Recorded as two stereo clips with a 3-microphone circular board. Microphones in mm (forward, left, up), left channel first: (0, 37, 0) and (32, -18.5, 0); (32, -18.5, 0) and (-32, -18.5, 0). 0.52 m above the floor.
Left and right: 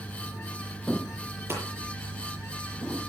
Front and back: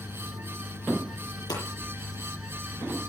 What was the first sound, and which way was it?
Hammering, 10° right.